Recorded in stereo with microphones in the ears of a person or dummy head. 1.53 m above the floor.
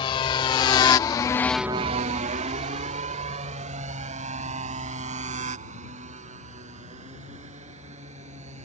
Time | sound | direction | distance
0.0 | a motorcycle | 30° left (ahead or behind) | ?